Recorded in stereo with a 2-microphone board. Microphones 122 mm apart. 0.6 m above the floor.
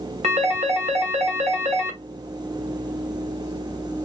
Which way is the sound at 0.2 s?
65° right (ahead or behind).